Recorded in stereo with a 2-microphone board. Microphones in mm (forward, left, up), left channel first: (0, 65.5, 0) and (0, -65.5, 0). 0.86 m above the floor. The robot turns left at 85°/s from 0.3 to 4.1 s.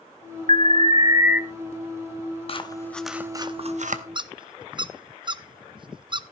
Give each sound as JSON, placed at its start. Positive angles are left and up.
{"t": 0.5, "sound": "an alarm", "azimuth_deg": -95, "distance_m": 0.8}
{"t": 2.5, "sound": "scissors", "side_deg": 45, "distance_m": 1.0}
{"t": 4.2, "sound": "a squeak", "side_deg": -35, "distance_m": 0.6}